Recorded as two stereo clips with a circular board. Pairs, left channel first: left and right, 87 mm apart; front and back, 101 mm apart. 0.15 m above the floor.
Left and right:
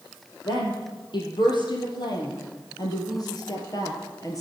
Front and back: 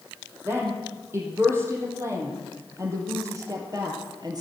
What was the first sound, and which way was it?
A woman speaking, 115° left.